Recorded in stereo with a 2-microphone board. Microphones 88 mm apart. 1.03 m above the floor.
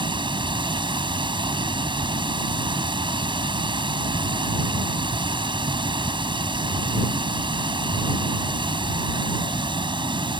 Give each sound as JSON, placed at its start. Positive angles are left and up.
{"t": 0.0, "sound": "running water", "side_deg": -65}